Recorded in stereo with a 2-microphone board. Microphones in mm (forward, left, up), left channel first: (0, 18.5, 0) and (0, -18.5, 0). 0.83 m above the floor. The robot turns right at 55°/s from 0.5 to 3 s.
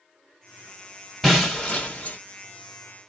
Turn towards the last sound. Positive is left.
turn(degrees=95)